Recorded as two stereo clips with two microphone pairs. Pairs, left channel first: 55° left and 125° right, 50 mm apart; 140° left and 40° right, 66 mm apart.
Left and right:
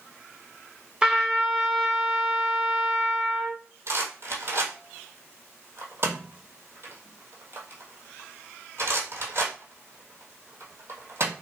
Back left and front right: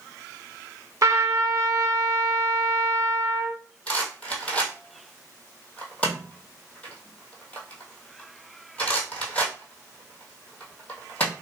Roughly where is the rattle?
Behind right.